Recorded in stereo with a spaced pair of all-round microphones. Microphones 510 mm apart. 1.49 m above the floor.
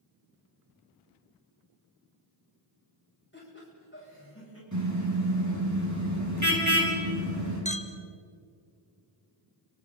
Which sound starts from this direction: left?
Laughter, at 3.3 s.